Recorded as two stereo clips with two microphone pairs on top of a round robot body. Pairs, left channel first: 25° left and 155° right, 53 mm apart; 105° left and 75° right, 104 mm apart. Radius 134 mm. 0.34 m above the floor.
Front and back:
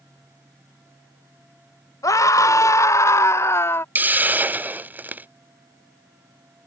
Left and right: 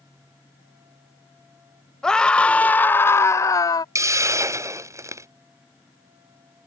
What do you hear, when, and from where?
2.0 s a scream: 25° left; by 3.9 s 65° left
4.0 s a hiss: 125° right